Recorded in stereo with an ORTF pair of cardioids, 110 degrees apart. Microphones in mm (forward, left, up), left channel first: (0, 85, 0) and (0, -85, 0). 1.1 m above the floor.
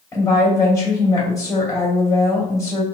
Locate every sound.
0.1 s a woman speaking: 20° left, 2.5 m